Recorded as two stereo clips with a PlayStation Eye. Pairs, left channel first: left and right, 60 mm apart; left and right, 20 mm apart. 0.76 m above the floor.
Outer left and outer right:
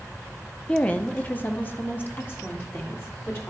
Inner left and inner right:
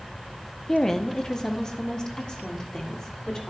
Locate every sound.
0.7 s a woman speaking: 20° left (ahead or behind), 0.6 m; by 3.5 s 40° left (ahead or behind), 2 m